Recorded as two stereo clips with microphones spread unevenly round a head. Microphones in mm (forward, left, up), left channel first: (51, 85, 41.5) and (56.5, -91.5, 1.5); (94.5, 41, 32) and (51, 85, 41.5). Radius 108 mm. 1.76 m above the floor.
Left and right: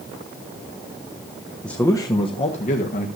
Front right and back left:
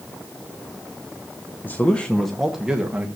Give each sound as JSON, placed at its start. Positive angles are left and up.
{"t": 1.6, "sound": "a man speaking", "azimuth_deg": 15, "distance_m": 1.2}